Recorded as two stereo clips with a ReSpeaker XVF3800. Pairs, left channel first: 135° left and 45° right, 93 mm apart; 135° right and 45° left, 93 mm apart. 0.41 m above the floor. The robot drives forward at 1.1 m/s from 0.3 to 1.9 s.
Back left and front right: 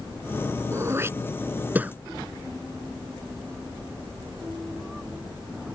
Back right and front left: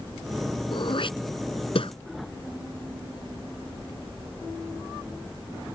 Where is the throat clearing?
105° right; by 1.9 s 120° right.